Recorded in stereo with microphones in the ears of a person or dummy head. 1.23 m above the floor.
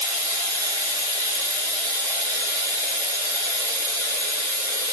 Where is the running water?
10° left (ahead or behind), 0.9 m.